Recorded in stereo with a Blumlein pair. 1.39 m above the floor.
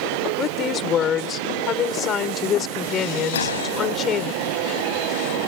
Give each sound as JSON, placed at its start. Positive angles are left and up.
{"t": 0.4, "sound": "a woman speaking", "azimuth_deg": 25}
{"t": 3.3, "sound": "a gunshot", "azimuth_deg": 65}